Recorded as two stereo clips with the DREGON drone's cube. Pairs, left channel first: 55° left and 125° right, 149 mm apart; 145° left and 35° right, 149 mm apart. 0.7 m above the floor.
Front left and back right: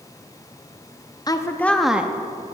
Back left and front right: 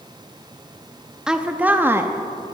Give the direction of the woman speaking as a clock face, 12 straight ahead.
11 o'clock.